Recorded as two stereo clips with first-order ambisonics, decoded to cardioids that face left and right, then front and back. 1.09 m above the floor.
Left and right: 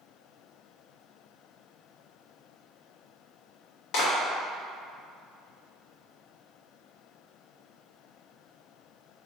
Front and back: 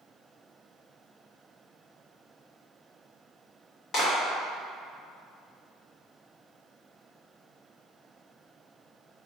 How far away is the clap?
About 1.6 m.